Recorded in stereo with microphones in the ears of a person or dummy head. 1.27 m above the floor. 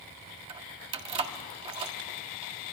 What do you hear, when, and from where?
0.5 s keys jangling: 30° right (ahead or behind), 1.6 m